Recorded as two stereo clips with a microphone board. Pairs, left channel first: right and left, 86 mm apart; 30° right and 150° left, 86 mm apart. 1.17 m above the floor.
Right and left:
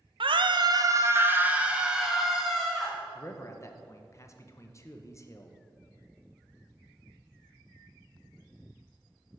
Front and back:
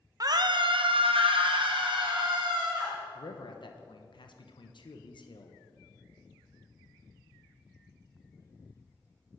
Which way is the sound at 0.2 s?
105° left.